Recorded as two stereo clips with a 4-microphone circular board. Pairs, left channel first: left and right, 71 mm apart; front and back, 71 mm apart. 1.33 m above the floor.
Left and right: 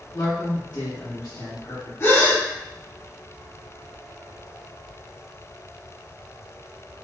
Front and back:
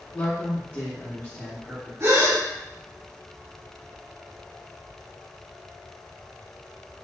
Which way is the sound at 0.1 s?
55° left.